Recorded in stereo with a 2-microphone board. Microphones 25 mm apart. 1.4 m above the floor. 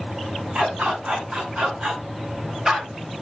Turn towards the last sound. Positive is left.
turn(degrees=-25)  # may be behind; listen again after turning